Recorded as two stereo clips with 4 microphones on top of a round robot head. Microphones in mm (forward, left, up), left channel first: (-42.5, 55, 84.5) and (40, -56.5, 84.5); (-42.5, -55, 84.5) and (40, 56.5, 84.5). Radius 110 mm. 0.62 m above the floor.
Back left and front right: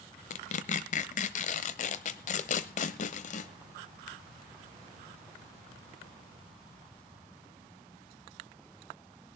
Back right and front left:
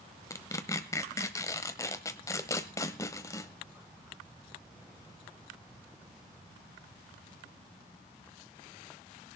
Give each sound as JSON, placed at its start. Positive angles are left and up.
{"t": 0.3, "sound": "tearing paper", "azimuth_deg": 165, "distance_m": 0.9}